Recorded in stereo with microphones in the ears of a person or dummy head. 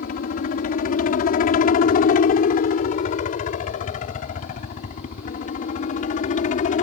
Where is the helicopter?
50° left (ahead or behind); by 6.8 s 45° left (ahead or behind).